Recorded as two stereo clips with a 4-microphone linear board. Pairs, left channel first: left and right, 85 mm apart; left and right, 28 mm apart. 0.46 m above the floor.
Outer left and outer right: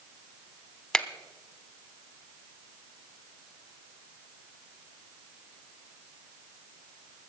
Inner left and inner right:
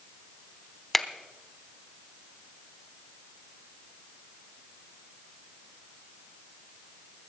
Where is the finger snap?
5° left (ahead or behind), 0.8 m.